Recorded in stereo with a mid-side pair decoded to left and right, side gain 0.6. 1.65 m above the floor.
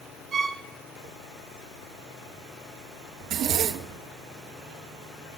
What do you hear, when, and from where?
0.3 s a violin: 40° right, 1.2 m
3.2 s a zipper: 60° right, 0.8 m